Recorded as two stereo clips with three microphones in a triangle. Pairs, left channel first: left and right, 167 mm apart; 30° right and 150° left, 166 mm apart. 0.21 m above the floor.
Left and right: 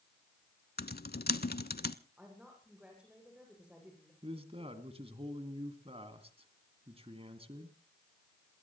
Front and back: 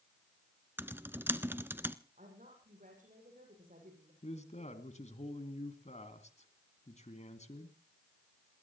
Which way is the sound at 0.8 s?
75° left.